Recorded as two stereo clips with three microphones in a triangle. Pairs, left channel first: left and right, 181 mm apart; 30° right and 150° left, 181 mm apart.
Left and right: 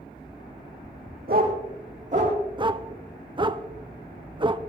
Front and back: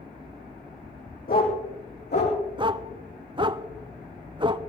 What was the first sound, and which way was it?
A dog barking, 60° right.